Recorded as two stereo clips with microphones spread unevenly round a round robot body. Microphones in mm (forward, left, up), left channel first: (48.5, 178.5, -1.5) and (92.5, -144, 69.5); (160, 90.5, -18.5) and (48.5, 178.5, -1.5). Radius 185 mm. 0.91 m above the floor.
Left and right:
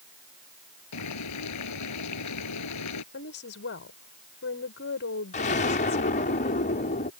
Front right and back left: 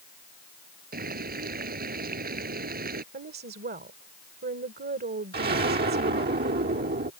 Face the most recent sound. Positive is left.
turn(degrees=165)